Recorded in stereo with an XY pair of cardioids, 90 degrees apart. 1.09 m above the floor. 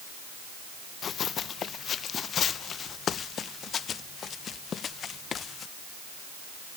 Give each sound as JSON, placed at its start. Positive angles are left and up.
{"t": 1.0, "sound": "running footsteps", "azimuth_deg": 60}